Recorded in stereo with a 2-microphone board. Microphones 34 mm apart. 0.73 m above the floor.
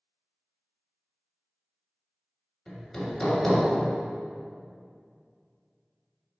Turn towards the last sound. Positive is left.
turn(degrees=10)  # may be behind; listen again after turning